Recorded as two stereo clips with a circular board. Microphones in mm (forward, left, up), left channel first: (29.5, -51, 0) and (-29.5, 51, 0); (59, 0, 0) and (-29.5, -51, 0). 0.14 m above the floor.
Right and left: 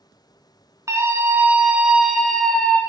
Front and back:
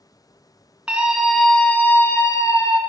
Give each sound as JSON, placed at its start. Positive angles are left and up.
{"t": 0.9, "sound": "a scream", "azimuth_deg": 145, "distance_m": 1.1}